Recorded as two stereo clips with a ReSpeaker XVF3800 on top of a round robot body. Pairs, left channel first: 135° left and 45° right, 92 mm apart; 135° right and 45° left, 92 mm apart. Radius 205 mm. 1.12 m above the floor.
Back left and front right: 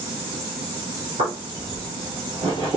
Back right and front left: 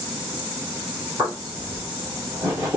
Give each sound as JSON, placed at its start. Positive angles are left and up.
{"t": 1.2, "sound": "footsteps", "azimuth_deg": -35, "distance_m": 1.4}